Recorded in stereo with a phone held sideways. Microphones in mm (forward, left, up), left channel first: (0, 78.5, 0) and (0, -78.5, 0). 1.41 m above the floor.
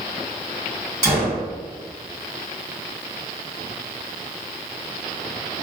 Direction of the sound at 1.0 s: 20° right (ahead or behind).